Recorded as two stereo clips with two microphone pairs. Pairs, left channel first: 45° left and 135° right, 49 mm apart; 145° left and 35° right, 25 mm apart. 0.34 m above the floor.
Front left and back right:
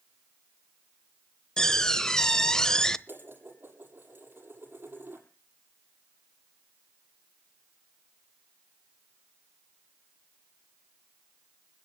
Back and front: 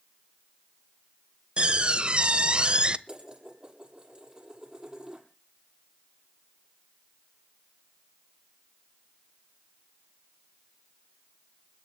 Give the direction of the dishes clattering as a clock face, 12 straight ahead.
3 o'clock.